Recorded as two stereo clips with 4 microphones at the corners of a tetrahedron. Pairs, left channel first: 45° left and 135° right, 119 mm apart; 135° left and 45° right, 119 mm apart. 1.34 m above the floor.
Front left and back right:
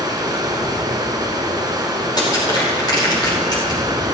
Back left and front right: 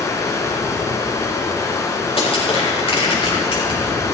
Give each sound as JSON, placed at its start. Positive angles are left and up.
{"t": 0.0, "sound": "running water", "azimuth_deg": -170, "distance_m": 1.7}
{"t": 2.2, "sound": "crushing", "azimuth_deg": 100, "distance_m": 4.5}